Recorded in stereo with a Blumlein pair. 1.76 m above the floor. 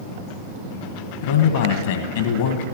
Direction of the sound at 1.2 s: 55° left.